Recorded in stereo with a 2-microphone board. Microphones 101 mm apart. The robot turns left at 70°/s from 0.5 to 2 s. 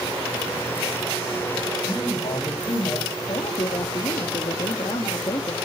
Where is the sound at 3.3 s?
55° left (ahead or behind), 1.9 m.